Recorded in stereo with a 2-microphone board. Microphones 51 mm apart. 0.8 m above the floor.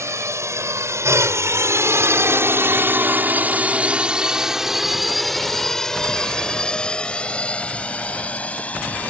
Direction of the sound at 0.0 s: 70° right (ahead or behind).